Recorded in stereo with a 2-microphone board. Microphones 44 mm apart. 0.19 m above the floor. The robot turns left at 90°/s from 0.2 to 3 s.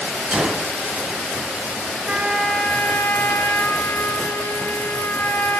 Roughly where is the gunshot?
Right.